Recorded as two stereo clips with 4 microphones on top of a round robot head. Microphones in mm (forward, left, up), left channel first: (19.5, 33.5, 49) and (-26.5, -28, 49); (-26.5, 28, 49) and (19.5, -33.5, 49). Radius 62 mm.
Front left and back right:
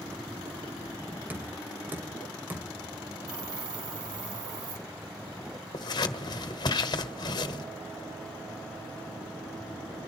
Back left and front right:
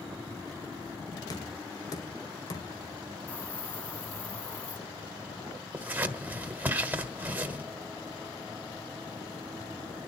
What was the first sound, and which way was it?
Knocking, 165° left.